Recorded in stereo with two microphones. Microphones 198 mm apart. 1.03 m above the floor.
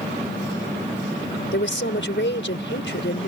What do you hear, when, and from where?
1.5 s a woman speaking: 70° left (ahead or behind)